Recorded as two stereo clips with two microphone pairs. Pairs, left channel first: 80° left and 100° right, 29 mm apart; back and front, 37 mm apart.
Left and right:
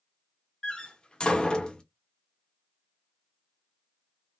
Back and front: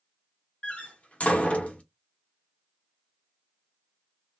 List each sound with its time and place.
0.6 s a door slam: 135° left, 1.0 m